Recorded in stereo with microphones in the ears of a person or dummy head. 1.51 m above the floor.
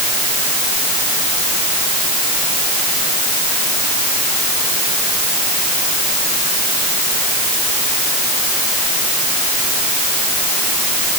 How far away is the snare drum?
No snare drum in this recording.